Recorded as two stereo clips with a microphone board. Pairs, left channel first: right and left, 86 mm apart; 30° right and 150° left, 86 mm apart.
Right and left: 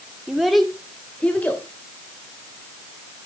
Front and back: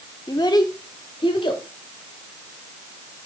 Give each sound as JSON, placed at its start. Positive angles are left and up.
{"t": 0.3, "sound": "a child speaking", "azimuth_deg": 10, "distance_m": 0.9}